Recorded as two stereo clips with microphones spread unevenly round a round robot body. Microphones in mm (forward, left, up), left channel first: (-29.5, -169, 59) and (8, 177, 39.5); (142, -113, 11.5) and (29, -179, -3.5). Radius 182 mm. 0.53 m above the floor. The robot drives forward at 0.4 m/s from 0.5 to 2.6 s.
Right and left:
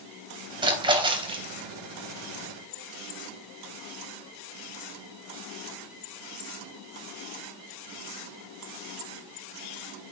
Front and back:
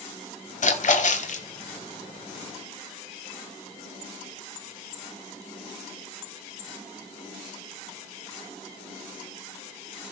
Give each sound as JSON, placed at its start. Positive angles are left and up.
{"t": 0.6, "sound": "a splash", "azimuth_deg": 5, "distance_m": 3.0}